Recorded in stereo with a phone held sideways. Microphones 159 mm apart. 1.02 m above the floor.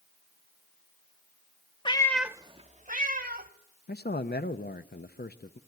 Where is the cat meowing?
30° left (ahead or behind), 0.8 m; by 3.5 s 70° right (ahead or behind), 1.7 m.